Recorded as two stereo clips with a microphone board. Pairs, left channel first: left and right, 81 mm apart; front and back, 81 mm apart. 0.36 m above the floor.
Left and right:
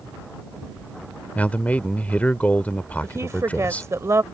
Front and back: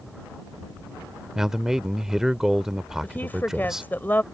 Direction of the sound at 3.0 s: 55° right.